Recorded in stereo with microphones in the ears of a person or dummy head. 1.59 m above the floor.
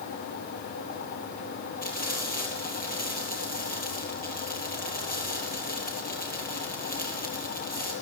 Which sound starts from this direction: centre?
Frying, at 1.8 s.